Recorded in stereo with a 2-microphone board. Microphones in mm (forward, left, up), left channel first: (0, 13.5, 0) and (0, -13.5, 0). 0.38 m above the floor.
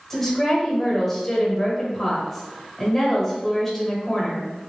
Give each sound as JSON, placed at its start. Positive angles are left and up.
{"t": 0.1, "sound": "a woman speaking", "side_deg": 5, "distance_m": 1.6}